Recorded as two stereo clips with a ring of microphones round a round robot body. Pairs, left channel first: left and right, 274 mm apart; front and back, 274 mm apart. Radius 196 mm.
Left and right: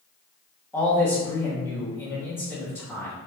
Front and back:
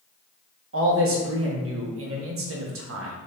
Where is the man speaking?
170° left, 0.9 m.